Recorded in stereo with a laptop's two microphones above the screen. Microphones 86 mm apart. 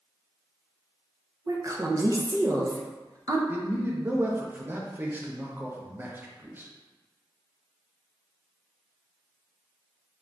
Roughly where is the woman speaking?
Right.